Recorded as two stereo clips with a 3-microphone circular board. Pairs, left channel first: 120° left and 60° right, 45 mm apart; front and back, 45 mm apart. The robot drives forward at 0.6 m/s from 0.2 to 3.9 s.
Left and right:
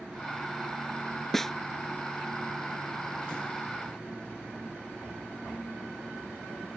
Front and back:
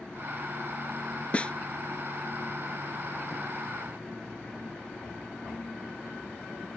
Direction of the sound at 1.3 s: 40° left.